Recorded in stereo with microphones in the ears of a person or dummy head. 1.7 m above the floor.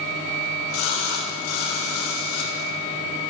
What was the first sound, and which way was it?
A splash, 75° left (ahead or behind).